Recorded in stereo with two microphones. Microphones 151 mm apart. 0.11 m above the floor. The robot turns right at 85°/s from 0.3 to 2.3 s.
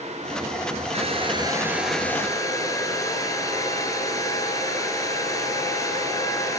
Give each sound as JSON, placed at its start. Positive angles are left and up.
{"t": 0.9, "sound": "a hair dryer", "azimuth_deg": -80, "distance_m": 1.6}